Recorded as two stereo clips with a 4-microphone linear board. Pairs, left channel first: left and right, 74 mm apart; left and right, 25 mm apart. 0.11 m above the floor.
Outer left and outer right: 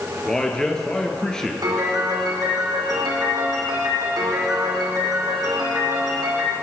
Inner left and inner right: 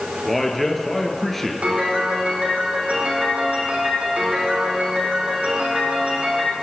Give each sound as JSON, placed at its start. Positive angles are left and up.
{"t": 0.2, "sound": "a man speaking", "side_deg": 10, "distance_m": 1.4}
{"t": 1.6, "sound": "a piano", "side_deg": -65, "distance_m": 3.5}